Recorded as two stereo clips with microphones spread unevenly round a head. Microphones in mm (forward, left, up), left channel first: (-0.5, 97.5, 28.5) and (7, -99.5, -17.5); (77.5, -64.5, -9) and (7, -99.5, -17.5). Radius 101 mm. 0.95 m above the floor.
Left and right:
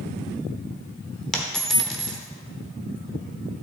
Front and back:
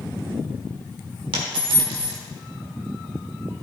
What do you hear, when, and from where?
1.3 s a dropped coin: 175° left, 1.1 m